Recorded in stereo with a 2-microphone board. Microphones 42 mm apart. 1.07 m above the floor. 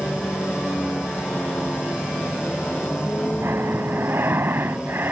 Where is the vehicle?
55° left (ahead or behind); by 5.1 s 35° left (ahead or behind).